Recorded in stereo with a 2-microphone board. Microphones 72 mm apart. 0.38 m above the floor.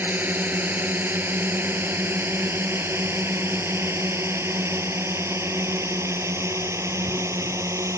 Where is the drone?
25° right (ahead or behind); by 8.0 s 40° right (ahead or behind).